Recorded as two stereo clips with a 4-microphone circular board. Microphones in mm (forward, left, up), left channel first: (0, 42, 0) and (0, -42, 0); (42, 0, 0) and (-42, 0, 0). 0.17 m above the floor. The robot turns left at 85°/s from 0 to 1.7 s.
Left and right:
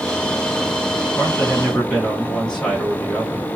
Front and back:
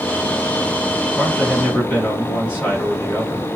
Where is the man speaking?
60° left, 1.7 m; by 3.5 s 15° left, 1.7 m.